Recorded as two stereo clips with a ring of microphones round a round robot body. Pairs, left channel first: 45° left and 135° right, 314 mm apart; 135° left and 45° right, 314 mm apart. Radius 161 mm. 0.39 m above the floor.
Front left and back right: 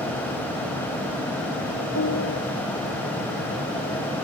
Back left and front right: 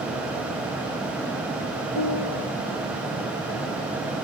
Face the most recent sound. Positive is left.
turn(degrees=100)